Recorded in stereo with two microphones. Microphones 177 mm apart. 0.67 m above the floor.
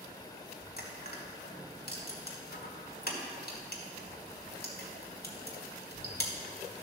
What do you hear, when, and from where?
0.8 s crushing: 60° left (ahead or behind), 1.6 m